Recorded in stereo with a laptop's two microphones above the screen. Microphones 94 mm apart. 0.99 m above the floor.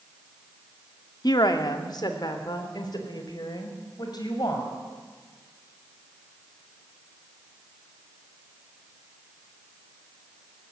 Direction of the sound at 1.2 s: 45° left (ahead or behind).